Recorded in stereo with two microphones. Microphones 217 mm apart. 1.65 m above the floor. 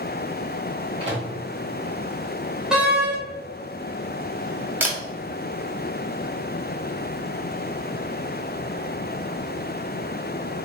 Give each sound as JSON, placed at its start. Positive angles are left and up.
{"t": 1.0, "sound": "a microwave", "side_deg": -25, "distance_m": 1.7}
{"t": 2.7, "sound": "a door slam", "side_deg": -5, "distance_m": 1.2}
{"t": 4.8, "sound": "a camera shutter", "side_deg": -10, "distance_m": 0.9}